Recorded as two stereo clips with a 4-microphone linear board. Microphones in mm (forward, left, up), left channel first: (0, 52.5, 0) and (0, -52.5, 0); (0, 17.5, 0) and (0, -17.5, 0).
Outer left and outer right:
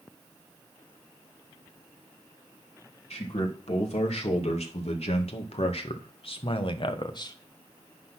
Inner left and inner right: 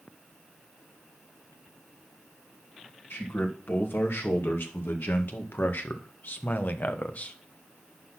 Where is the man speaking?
80° left, 3 m; by 7.4 s 40° left (ahead or behind), 1.0 m.